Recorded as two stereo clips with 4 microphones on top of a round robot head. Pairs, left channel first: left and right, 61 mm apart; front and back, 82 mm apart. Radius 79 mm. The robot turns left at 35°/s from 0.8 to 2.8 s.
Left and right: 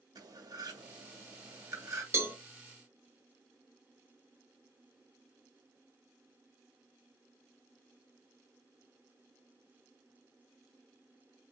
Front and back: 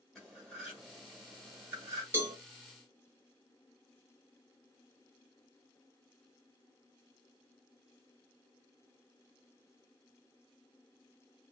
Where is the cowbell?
125° right, 1.3 m; by 2.4 s 130° right, 1.3 m.